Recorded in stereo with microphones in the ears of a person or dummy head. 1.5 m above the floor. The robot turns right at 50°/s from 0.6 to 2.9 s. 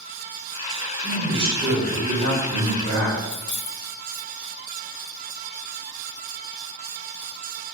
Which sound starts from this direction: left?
Keys jangling, at 3.2 s.